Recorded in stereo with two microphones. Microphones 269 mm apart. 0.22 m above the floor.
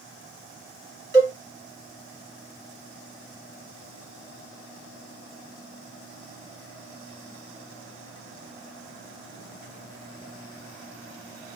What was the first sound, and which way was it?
A cowbell, 40° left (ahead or behind).